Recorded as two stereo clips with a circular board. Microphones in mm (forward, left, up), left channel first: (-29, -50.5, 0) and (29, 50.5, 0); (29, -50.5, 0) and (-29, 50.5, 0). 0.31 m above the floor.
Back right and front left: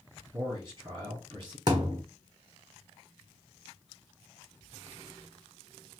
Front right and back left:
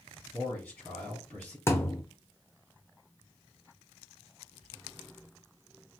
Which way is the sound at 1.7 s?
10° left.